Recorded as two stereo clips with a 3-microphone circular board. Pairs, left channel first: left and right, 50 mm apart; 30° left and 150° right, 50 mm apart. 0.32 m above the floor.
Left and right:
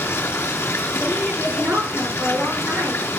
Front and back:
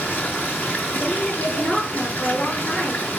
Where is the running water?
80° left, 4 m.